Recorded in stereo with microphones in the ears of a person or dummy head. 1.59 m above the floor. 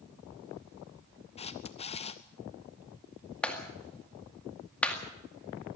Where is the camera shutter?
30° left (ahead or behind), 0.8 m.